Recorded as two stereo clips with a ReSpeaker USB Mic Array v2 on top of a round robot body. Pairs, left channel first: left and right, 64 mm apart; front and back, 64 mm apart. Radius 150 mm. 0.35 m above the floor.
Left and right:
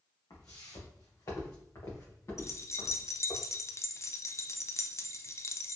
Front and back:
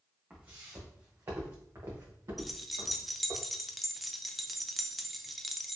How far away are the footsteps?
About 1.2 m.